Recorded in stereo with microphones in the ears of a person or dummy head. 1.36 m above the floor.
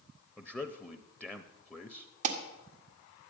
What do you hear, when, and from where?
0.4 s a man speaking: 5° left (ahead or behind), 0.5 m
2.2 s an alarm: 45° right (ahead or behind), 1.6 m